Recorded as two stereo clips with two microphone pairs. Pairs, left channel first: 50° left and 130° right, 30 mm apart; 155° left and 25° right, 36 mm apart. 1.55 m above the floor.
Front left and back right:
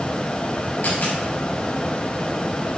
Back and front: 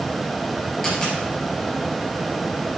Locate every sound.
0.8 s a dropped coin: 75° left, 4 m